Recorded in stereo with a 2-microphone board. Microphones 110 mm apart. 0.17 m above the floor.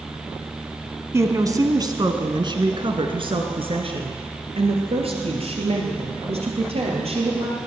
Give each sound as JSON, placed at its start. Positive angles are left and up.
{"t": 1.1, "sound": "a woman speaking", "side_deg": -25, "distance_m": 1.3}